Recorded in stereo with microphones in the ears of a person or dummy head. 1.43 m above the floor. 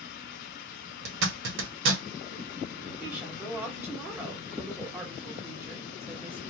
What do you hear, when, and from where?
1.1 s a zipper: 65° right (ahead or behind), 0.8 m
3.0 s a woman speaking: 10° right (ahead or behind), 1.2 m